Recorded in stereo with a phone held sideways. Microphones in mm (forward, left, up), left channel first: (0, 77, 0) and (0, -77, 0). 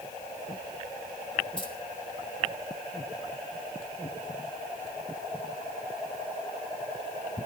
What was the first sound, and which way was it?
Keys jangling, 35° left (ahead or behind).